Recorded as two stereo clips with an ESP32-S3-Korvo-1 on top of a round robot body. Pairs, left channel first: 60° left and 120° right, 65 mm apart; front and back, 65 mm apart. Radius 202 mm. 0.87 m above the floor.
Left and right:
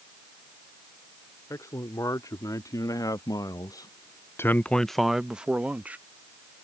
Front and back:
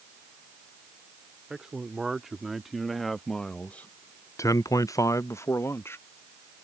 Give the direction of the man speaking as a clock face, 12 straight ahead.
9 o'clock.